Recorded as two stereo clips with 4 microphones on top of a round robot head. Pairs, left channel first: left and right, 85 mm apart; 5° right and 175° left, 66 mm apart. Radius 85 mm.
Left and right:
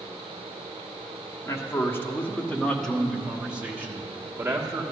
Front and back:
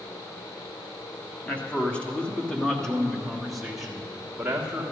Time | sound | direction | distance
1.4 | a man speaking | 55° left | 1.5 m